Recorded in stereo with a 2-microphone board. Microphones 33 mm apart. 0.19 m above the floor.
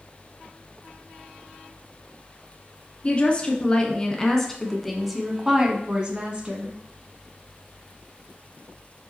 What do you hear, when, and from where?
3.0 s a woman speaking: 35° left (ahead or behind), 1.8 m; by 6.8 s 40° right (ahead or behind), 1.5 m